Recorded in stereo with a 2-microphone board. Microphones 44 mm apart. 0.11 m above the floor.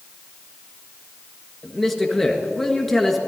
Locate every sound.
1.6 s a man speaking: 5° left (ahead or behind), 1.6 m